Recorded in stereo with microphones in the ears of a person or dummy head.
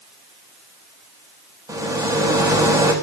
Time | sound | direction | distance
1.7 | a rattle | 20° right (ahead or behind) | 3 m